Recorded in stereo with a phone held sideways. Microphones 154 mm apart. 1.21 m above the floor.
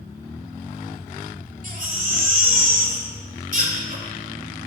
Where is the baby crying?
55° right (ahead or behind), 1.9 m.